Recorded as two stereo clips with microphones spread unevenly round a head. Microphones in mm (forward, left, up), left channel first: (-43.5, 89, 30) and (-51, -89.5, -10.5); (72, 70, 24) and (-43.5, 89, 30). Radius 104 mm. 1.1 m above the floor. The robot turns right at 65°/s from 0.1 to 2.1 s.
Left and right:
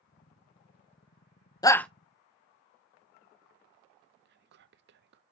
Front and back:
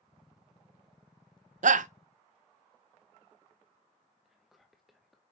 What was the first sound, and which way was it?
A shout, 160° left.